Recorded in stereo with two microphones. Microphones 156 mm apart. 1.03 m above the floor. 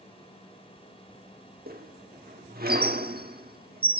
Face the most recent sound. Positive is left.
turn(degrees=-70)  # may be behind; listen again after turning